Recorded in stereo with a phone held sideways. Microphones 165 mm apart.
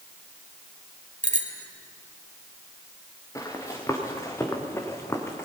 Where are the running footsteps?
20° left (ahead or behind), 4 m; by 5.5 s 15° left (ahead or behind), 2.5 m.